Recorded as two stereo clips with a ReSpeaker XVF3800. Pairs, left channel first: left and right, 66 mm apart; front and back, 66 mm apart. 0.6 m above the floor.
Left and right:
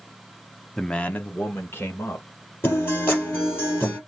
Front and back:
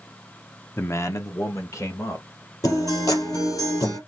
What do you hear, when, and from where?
0.8 s a man speaking: 10° left, 0.7 m; by 2.5 s 40° left, 2.5 m
2.6 s a guitar: 30° left, 4 m